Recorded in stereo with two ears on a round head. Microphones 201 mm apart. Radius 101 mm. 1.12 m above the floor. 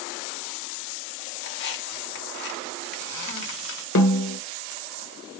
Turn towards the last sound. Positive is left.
turn(degrees=65)  # may be behind; listen again after turning